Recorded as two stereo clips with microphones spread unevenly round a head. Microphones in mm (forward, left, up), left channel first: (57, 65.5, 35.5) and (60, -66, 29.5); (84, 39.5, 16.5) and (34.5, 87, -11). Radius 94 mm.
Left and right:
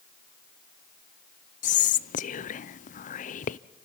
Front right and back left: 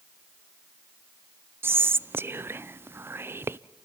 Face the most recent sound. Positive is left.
turn(degrees=105)